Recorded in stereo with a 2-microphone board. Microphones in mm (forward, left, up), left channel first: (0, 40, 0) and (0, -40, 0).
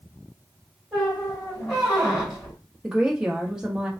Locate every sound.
0.9 s a squeak: 5° right (ahead or behind), 2.5 m
2.8 s a woman speaking: 10° right (ahead or behind), 1.1 m